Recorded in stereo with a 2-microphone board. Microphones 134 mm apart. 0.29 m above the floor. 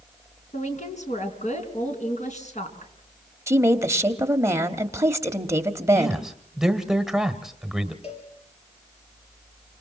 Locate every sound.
0.5 s a woman speaking: 55° left (ahead or behind), 3.5 m
3.5 s a woman speaking: 20° right (ahead or behind), 1.1 m
6.0 s a man speaking: 5° right (ahead or behind), 1.2 m
8.0 s a cowbell: 45° left (ahead or behind), 4 m